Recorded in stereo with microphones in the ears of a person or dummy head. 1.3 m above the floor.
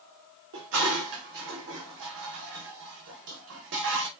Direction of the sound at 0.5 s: 65° right (ahead or behind).